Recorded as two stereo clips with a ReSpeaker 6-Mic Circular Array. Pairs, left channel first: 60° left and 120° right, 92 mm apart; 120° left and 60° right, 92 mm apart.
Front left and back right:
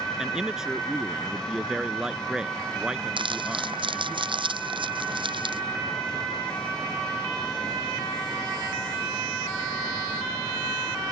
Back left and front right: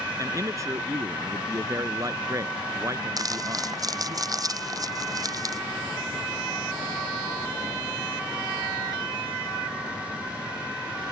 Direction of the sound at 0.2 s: 40° right.